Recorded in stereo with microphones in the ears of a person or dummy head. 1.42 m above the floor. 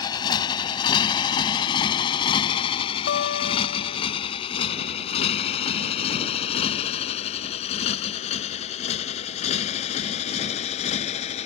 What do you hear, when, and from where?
0.0 s a motorcycle: 25° left (ahead or behind); by 11.5 s 40° left (ahead or behind)
3.1 s a guitar: 65° left (ahead or behind)